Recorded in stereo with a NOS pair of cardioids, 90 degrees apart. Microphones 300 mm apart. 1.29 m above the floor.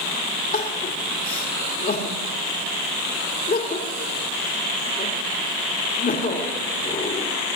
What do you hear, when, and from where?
0.5 s crying: 30° left, 1.9 m